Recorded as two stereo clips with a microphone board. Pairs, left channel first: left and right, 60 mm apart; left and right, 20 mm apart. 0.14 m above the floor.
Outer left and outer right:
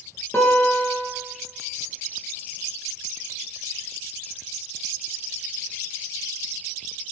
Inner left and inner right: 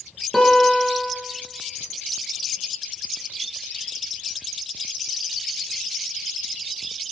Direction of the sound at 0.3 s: 45° left (ahead or behind).